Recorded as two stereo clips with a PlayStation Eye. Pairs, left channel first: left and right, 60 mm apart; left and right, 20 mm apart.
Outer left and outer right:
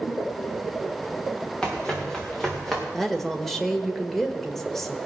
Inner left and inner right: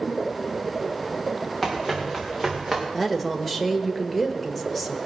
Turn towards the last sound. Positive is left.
turn(degrees=5)  # may be behind; listen again after turning